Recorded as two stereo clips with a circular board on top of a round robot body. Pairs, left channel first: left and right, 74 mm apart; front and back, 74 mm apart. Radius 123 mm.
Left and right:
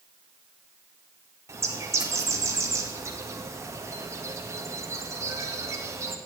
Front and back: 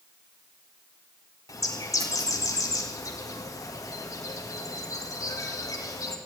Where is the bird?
40° right, 2.0 m.